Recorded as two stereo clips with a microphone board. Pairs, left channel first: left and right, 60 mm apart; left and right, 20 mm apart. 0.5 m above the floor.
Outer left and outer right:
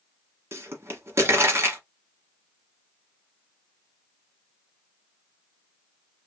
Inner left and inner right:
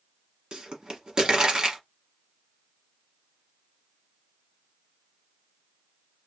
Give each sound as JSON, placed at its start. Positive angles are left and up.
{"t": 0.5, "sound": "a pop", "side_deg": -45, "distance_m": 1.2}